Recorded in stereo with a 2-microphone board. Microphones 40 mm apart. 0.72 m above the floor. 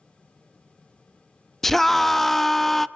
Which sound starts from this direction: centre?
A scream, at 1.6 s.